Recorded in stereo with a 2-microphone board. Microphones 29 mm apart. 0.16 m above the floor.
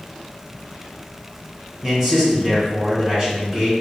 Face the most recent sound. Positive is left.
turn(degrees=-20)  # may be behind; listen again after turning